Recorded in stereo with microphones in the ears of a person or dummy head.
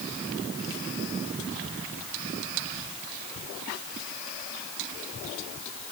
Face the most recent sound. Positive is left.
No sound to turn to.